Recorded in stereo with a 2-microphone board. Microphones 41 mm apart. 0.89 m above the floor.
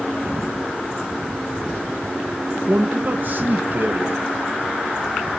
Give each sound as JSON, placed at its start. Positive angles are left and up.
{"t": 2.7, "sound": "a man speaking", "side_deg": -45, "distance_m": 0.7}